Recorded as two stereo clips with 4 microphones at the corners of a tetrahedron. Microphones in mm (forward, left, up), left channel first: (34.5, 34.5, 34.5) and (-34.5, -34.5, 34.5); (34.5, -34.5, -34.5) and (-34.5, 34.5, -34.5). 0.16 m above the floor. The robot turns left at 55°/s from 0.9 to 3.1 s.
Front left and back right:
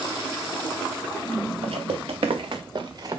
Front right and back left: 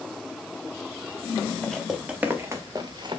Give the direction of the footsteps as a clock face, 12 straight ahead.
4 o'clock.